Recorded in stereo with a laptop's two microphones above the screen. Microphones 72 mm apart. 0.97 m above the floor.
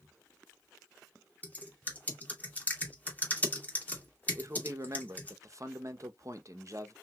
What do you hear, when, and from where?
1.4 s typing on a keyboard: 20° left (ahead or behind), 2 m
4.3 s a man speaking: 45° right (ahead or behind), 0.8 m